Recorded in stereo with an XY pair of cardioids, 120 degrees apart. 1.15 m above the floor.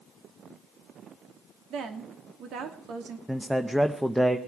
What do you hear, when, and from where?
1.7 s a woman speaking: 65° right, 2.5 m
3.3 s a man speaking: 5° right, 0.8 m